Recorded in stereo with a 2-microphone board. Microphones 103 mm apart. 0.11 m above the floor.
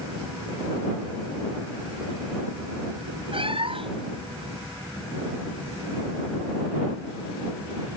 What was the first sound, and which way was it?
A cat meowing, 55° right (ahead or behind).